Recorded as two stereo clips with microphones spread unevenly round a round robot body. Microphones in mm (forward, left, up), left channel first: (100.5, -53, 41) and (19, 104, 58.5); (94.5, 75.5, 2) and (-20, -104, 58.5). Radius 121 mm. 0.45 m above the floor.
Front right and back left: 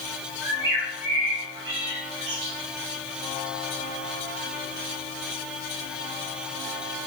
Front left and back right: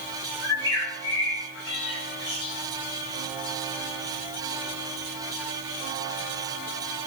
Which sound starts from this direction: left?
A bird, at 0.4 s.